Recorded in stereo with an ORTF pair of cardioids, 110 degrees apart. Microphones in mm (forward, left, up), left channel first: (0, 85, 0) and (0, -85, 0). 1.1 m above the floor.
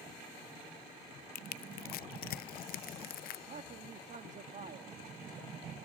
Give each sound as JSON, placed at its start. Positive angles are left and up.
{"t": 1.4, "sound": "crushing", "azimuth_deg": 65, "distance_m": 0.5}
{"t": 3.5, "sound": "a man speaking", "azimuth_deg": -45, "distance_m": 1.9}